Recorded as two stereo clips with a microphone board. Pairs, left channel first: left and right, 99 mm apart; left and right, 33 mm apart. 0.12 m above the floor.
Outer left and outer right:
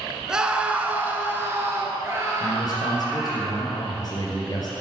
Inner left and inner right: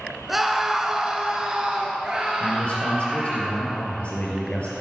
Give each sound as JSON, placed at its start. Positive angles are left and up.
{"t": 0.3, "sound": "a scream", "side_deg": -5, "distance_m": 1.1}
{"t": 2.4, "sound": "a man speaking", "side_deg": 40, "distance_m": 3.0}